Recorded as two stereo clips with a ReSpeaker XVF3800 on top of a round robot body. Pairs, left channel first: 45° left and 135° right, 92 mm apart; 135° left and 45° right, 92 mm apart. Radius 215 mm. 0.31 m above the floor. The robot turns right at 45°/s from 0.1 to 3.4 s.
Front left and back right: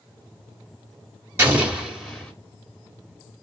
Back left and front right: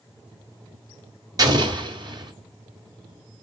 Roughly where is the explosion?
Right.